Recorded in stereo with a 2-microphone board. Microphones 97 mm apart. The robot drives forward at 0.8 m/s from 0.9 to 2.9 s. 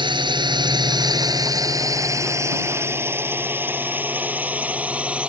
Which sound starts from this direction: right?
A drone, at 0.0 s.